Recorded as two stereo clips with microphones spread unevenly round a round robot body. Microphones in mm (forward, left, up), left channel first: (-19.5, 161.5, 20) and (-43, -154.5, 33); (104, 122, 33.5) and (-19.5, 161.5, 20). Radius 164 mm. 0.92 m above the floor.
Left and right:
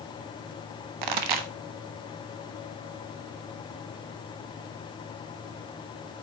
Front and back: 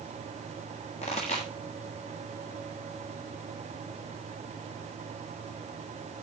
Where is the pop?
80° right, 1.2 m.